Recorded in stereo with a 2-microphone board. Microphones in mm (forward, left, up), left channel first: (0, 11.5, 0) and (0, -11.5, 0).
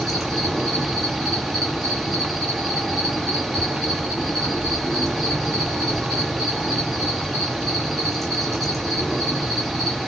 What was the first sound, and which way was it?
An insect, 5° left (ahead or behind).